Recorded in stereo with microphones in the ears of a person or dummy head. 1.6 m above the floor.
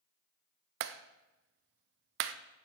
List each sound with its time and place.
0.8 s a clap: 65° right (ahead or behind), 0.5 m